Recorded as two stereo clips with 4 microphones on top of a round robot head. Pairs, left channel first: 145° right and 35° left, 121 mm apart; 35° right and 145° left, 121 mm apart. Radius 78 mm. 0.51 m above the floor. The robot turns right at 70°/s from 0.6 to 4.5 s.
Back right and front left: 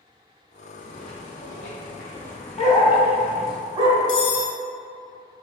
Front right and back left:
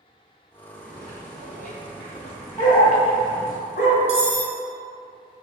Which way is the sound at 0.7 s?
170° right.